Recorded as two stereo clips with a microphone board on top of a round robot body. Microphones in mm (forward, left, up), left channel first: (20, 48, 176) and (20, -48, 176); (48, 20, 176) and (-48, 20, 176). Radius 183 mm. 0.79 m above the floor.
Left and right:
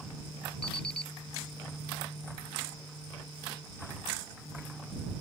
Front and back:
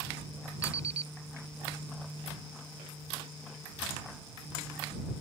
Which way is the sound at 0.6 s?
170° left.